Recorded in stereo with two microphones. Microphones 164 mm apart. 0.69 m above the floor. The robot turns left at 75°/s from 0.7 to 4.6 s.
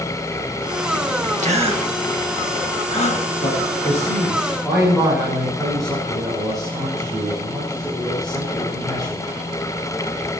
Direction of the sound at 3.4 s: 90° left.